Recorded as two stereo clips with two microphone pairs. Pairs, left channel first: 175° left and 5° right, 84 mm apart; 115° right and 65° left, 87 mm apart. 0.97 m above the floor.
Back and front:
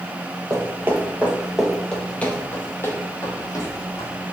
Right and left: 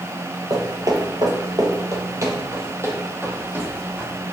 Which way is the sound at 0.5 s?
35° left.